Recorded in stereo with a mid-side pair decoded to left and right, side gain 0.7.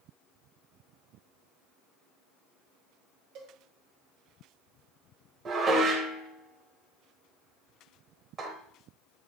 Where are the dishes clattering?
30° right, 2 m.